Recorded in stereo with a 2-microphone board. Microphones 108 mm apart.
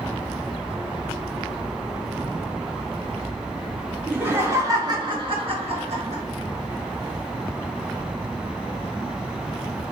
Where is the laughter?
15° right (ahead or behind), 0.9 m; by 6.2 s 75° right (ahead or behind), 1.2 m.